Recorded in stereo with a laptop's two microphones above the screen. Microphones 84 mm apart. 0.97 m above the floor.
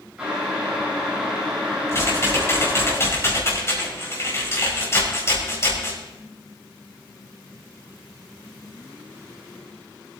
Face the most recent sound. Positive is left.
turn(degrees=30)  # may be behind; listen again after turning